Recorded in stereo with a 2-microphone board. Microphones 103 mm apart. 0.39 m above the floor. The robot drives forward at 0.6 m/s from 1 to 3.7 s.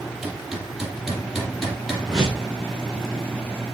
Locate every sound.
0.2 s hammering: 5° right (ahead or behind), 4.5 m
2.1 s a whoosh: 5° right (ahead or behind), 8.5 m